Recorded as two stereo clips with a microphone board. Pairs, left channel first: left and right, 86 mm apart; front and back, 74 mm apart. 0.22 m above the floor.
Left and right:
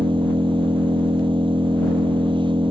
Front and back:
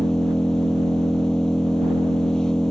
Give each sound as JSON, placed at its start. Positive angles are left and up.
{"t": 0.0, "sound": "an engine running", "azimuth_deg": -80}